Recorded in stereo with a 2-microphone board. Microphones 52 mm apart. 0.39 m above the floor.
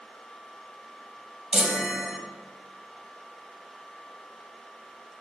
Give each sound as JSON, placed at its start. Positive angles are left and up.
{"t": 1.5, "sound": "a chime", "side_deg": -10, "distance_m": 0.9}